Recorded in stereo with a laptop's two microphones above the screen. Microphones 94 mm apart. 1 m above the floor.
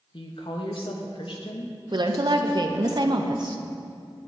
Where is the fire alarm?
No fire alarm in this recording.